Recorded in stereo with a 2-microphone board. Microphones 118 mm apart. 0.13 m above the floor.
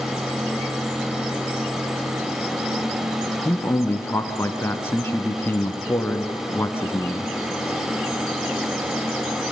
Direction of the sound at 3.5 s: 20° left (ahead or behind).